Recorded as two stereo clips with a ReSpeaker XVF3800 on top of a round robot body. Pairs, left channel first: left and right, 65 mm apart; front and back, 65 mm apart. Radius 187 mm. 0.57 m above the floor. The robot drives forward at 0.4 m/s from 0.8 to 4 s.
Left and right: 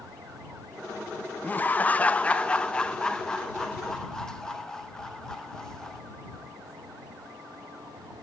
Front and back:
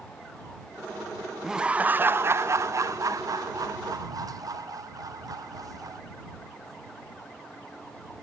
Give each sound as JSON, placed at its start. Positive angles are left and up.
{"t": 1.4, "sound": "laughter", "azimuth_deg": 105, "distance_m": 0.6}